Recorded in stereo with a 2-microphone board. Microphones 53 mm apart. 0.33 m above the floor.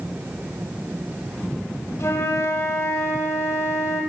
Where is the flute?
85° left, 9.5 m.